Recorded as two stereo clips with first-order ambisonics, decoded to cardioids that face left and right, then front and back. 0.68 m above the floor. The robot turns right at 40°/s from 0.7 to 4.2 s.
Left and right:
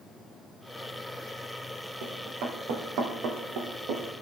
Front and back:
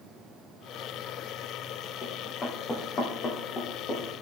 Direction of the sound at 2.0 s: 75° right.